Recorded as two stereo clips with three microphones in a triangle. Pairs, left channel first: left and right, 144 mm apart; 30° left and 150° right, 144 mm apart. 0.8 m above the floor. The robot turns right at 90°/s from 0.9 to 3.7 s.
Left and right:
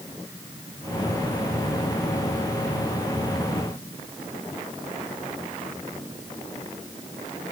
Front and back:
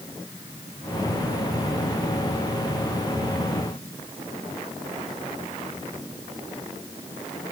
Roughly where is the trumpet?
No trumpet in this recording.